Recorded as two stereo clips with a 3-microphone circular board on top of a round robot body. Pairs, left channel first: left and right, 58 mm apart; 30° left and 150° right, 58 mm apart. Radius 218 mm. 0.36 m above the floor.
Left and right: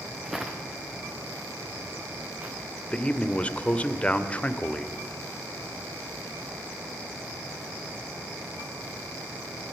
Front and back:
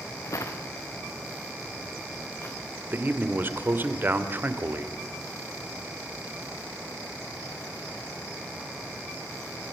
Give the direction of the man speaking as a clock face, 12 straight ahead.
7 o'clock.